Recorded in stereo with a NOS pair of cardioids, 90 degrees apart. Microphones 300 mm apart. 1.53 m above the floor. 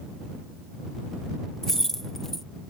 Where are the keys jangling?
Straight ahead.